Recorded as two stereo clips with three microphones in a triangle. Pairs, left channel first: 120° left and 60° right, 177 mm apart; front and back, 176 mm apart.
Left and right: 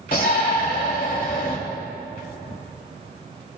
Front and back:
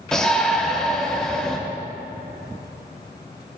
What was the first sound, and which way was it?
A shout, 85° left.